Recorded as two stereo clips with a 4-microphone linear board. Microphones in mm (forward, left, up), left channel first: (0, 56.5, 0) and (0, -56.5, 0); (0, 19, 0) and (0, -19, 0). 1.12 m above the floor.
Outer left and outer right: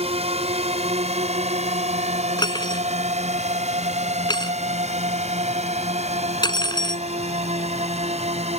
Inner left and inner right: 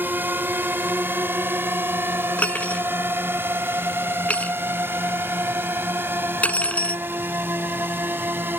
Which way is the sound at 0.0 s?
65° right (ahead or behind).